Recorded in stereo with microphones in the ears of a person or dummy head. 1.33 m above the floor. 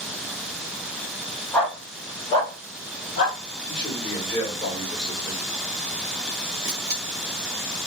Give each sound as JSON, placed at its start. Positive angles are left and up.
{"t": 1.5, "sound": "a dog barking", "side_deg": 5, "distance_m": 1.7}
{"t": 3.7, "sound": "a man speaking", "side_deg": 20, "distance_m": 1.6}
{"t": 6.6, "sound": "a camera shutter", "side_deg": -10, "distance_m": 1.0}